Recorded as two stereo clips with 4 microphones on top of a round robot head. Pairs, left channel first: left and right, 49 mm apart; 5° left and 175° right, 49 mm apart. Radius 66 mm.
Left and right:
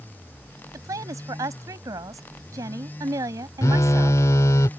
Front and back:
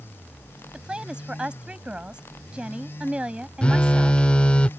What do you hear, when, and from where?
0.7 s a woman speaking: 105° right
3.6 s a phone buzzing: 70° left